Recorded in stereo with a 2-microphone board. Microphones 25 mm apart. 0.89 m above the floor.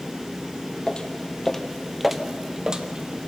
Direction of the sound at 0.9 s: 35° left (ahead or behind).